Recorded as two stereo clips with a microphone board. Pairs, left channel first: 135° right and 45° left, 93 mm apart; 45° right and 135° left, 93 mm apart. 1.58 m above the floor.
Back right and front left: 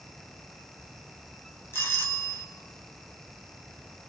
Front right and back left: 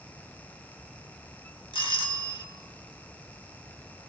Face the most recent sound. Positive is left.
turn(degrees=-75)